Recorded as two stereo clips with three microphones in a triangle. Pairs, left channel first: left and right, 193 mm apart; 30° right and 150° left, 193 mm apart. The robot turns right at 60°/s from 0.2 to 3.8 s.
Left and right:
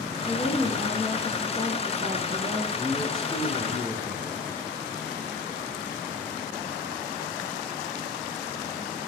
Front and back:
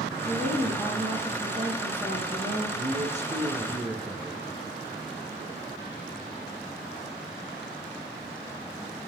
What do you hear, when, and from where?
0.2 s a woman speaking: 120° left, 2.5 m; by 2.6 s 95° right, 2.5 m
2.8 s a man speaking: 165° left, 1.9 m; by 4.4 s 130° right, 1.9 m